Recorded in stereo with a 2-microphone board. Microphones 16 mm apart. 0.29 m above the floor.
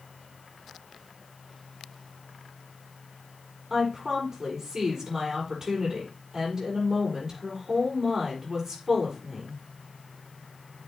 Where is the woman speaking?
35° right (ahead or behind), 6.5 m.